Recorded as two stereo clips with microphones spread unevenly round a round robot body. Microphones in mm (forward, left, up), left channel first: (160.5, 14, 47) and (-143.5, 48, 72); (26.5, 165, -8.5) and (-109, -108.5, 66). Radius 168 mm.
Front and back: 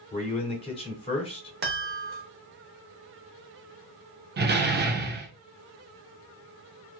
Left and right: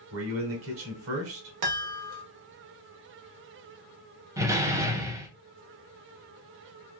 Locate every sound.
0.1 s a man speaking: 70° right, 1.4 m
1.6 s a chime: 140° right, 0.9 m
4.4 s a door slam: 145° left, 0.8 m